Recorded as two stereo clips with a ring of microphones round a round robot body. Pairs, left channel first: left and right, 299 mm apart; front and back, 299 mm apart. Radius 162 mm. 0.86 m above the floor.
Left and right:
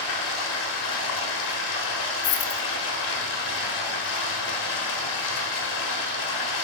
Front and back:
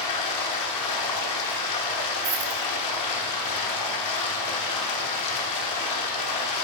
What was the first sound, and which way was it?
Running water, 35° left.